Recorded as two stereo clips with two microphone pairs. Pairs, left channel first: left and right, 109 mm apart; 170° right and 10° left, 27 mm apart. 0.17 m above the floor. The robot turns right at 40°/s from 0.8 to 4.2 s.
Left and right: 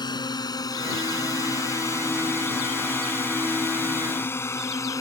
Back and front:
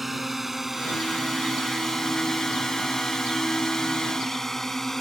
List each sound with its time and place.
0.0 s a drone: 95° left; by 5.0 s 120° left